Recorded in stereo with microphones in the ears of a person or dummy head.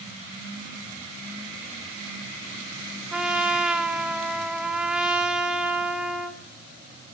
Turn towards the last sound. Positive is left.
turn(degrees=-5)  # may be behind; listen again after turning